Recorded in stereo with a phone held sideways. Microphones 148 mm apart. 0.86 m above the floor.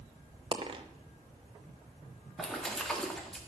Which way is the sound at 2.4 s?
Centre (ahead or behind).